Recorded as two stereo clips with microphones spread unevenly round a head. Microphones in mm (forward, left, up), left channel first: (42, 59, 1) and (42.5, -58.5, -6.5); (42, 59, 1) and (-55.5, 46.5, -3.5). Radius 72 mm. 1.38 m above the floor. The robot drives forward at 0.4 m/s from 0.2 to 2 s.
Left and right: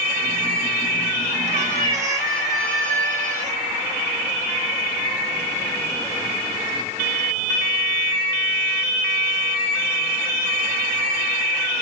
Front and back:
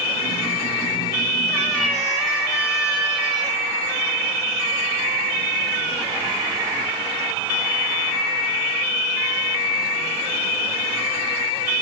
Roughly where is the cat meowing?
Right.